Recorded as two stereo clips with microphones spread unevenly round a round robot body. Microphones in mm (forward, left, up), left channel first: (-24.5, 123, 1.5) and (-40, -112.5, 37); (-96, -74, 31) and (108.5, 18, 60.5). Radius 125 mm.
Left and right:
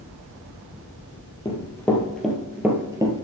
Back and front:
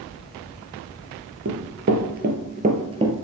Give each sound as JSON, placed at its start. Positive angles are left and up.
{"t": 1.4, "sound": "running footsteps", "azimuth_deg": 5, "distance_m": 1.7}